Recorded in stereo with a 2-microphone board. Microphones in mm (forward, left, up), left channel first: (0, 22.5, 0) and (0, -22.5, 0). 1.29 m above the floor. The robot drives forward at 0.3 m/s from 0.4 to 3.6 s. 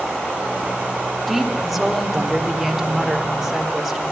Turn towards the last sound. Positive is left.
turn(degrees=0)  # may be behind; listen again after turning